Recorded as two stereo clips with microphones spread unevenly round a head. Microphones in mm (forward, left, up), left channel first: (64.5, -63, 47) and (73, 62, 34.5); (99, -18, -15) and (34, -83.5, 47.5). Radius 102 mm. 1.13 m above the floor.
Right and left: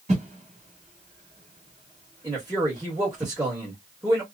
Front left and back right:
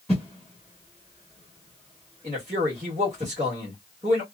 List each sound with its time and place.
0.1 s a whoosh: 140° left, 1.4 m
2.2 s a man speaking: 160° left, 1.3 m